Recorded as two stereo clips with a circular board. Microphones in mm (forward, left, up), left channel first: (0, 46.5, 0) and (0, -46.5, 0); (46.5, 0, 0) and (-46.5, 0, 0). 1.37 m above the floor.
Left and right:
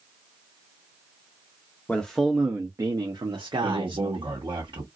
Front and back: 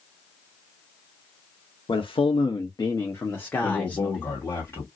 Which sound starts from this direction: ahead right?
A man speaking, at 3.6 s.